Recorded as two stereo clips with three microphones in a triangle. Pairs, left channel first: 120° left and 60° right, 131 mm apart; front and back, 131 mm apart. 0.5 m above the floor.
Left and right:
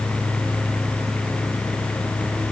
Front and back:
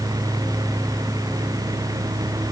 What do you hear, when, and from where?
Only background noise.